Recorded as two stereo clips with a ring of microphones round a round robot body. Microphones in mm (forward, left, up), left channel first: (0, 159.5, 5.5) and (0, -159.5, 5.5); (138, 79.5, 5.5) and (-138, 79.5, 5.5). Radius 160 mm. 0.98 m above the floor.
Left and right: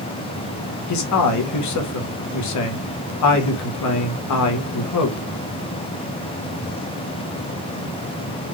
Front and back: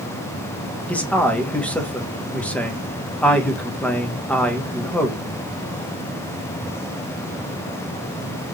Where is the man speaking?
85° left, 1.1 m.